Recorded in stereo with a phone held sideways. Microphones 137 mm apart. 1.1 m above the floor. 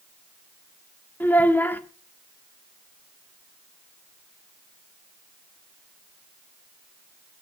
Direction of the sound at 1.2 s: 15° left (ahead or behind).